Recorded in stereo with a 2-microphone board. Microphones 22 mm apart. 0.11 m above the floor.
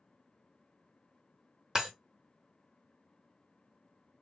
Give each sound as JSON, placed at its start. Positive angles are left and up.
{"t": 1.8, "sound": "breaking glass", "side_deg": -30, "distance_m": 1.1}